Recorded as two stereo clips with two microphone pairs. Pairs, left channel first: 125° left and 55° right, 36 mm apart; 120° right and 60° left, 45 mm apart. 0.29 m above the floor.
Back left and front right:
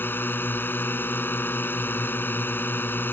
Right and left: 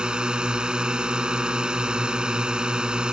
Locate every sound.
0.0 s a drone: 125° left